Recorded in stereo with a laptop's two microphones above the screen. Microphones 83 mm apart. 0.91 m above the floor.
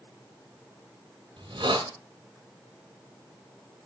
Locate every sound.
1.4 s a hiss: 80° right, 1.7 m